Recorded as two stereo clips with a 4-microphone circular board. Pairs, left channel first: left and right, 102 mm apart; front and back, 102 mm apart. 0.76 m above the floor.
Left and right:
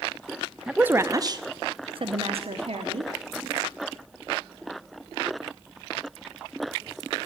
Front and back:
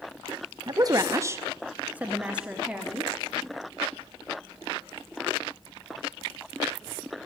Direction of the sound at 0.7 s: 170° right.